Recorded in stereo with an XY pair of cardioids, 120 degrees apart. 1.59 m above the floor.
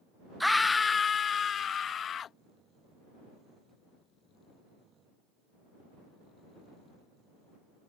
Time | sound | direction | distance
0.4 | a scream | straight ahead | ?